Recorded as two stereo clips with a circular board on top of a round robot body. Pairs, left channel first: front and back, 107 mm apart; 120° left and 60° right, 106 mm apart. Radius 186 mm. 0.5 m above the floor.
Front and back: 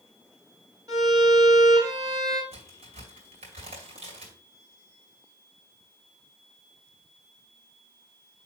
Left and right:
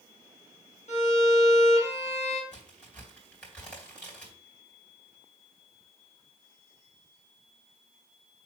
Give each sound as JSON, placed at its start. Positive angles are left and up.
{"t": 0.9, "sound": "a violin", "azimuth_deg": 115, "distance_m": 3.0}
{"t": 2.5, "sound": "a crack", "azimuth_deg": -160, "distance_m": 3.0}